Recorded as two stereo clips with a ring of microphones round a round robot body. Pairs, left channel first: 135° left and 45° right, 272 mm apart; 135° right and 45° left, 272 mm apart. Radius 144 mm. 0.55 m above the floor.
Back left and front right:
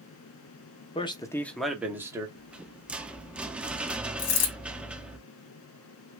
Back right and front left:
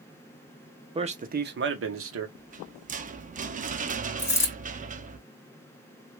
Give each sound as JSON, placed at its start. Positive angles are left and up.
{"t": 0.9, "sound": "a man speaking", "azimuth_deg": 95, "distance_m": 0.7}
{"t": 2.4, "sound": "a rattle", "azimuth_deg": 35, "distance_m": 0.6}
{"t": 4.2, "sound": "a dropped coin", "azimuth_deg": 145, "distance_m": 2.5}